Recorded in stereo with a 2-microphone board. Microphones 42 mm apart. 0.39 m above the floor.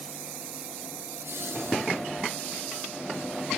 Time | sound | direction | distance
1.1 | laughter | 65° right (ahead or behind) | 4.5 m